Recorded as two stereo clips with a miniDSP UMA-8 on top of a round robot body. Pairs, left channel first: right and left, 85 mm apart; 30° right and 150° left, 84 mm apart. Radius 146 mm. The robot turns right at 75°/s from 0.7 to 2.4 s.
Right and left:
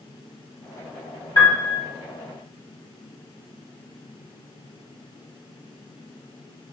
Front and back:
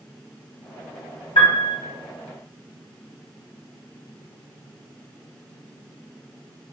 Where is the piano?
40° right, 1.9 m; by 1.8 s 10° right, 1.9 m.